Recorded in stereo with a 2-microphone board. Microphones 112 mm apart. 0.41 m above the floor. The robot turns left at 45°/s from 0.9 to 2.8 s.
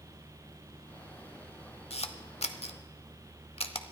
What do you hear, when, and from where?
1.9 s a camera shutter: 60° left (ahead or behind), 0.8 m